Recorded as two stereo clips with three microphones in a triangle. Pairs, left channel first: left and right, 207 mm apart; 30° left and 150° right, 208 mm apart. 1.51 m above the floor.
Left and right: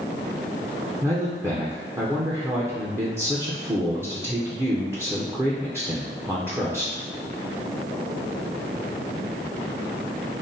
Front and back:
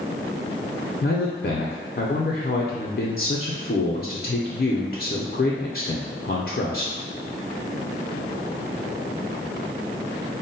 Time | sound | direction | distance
1.0 | a man speaking | 15° right | 0.6 m